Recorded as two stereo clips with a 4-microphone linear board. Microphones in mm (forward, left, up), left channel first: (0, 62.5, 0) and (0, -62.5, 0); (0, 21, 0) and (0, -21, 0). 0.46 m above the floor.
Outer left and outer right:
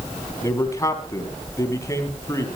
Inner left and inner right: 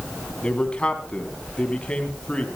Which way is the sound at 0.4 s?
25° left (ahead or behind).